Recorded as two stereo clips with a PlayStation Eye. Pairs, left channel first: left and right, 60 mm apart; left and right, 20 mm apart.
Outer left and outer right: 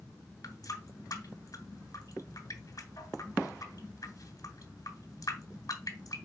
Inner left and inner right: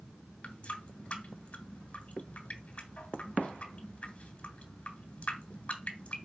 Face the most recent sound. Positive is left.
turn(degrees=80)